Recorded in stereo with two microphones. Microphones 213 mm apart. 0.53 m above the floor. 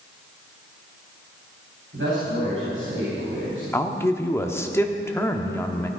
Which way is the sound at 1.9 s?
70° right (ahead or behind).